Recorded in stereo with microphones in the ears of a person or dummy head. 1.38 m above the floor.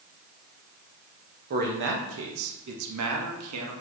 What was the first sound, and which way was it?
A man speaking, 45° right (ahead or behind).